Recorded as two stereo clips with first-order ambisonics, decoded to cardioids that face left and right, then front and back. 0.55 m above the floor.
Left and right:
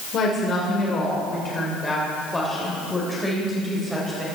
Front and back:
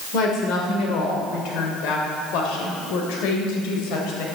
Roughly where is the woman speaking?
Ahead left.